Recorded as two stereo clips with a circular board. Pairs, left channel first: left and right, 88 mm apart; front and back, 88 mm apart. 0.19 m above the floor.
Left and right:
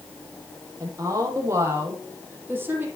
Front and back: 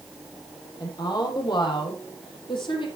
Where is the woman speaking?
40° right, 8 m; by 2.9 s 20° right, 8 m.